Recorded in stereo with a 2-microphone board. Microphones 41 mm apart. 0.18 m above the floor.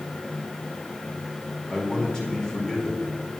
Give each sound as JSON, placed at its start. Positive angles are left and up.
{"t": 1.7, "sound": "a man speaking", "side_deg": 15, "distance_m": 3.0}